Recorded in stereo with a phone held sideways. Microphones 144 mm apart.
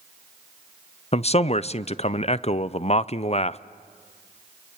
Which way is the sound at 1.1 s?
45° left (ahead or behind).